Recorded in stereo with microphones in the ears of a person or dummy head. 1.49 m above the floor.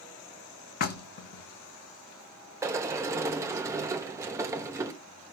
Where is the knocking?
60° left (ahead or behind), 0.9 m.